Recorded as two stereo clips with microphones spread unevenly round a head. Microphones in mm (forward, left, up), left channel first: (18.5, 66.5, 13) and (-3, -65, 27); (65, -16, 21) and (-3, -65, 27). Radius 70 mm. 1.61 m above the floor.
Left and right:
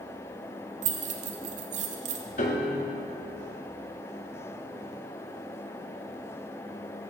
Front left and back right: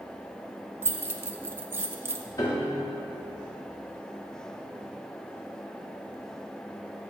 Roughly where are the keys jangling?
Right.